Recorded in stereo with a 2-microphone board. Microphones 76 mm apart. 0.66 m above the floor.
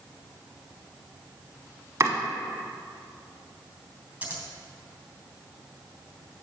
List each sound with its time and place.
2.0 s chopping: 40° right (ahead or behind), 1.3 m
4.2 s scissors: 15° right (ahead or behind), 3 m